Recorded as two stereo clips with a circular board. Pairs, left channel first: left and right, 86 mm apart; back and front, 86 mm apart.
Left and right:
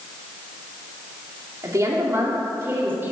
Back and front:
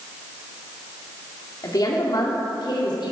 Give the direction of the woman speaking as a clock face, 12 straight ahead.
5 o'clock.